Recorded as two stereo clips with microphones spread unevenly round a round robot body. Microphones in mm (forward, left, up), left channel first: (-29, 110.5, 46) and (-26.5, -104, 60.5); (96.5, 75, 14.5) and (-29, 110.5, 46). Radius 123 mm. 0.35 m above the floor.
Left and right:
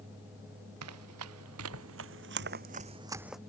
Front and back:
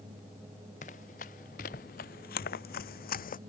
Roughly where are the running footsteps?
Right.